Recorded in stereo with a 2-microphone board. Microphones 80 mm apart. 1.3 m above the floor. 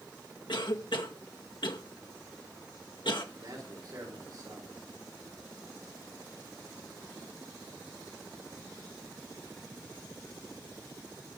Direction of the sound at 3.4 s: 55° right (ahead or behind).